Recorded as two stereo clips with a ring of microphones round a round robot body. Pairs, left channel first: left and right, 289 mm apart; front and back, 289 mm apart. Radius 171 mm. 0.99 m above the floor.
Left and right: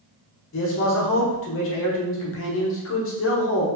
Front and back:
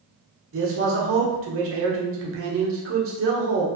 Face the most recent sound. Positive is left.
turn(degrees=135)